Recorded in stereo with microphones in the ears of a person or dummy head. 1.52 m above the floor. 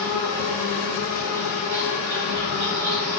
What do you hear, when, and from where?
0.0 s an insect: 55° right (ahead or behind), 1.5 m